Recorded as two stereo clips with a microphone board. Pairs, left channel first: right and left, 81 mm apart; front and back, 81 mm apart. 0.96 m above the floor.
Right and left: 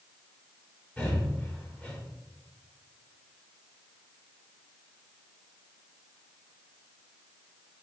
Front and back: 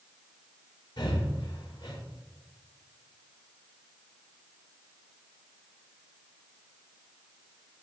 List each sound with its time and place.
1.0 s breathing: 15° right, 3.5 m